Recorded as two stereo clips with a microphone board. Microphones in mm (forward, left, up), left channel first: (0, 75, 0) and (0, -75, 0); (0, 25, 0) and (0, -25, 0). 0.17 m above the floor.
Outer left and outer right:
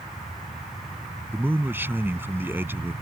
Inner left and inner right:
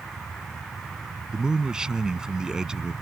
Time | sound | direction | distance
1.3 | a man speaking | 15° right (ahead or behind) | ?